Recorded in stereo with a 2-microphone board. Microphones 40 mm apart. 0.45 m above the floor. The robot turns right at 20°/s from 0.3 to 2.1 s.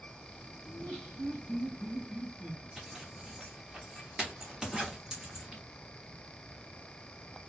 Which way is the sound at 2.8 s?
15° right (ahead or behind).